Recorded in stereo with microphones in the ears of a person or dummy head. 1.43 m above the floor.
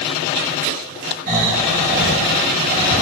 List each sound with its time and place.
1.3 s snoring: 45° right (ahead or behind), 6 m